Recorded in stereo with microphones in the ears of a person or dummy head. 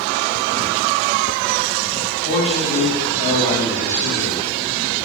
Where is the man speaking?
75° left (ahead or behind), 1.8 m; by 4.4 s 55° left (ahead or behind), 2.5 m.